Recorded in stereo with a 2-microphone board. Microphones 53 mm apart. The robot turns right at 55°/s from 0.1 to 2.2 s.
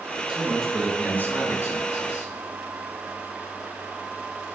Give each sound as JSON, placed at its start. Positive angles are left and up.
{"t": 0.3, "sound": "a man speaking", "azimuth_deg": -10, "distance_m": 3.0}